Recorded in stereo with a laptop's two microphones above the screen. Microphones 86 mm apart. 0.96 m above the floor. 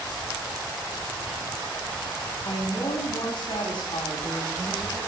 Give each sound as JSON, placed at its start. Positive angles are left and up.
{"t": 2.5, "sound": "a woman speaking", "side_deg": 85, "distance_m": 7.5}